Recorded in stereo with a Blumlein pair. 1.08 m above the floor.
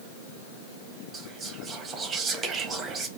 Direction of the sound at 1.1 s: 25° right.